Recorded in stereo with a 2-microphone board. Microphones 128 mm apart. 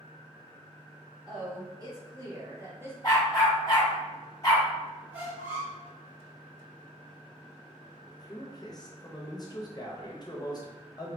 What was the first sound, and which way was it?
A woman speaking, 30° right (ahead or behind).